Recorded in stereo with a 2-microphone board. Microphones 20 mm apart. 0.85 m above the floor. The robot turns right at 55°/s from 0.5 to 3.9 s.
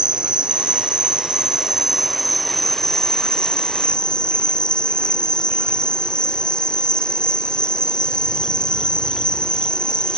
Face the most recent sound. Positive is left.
turn(degrees=80)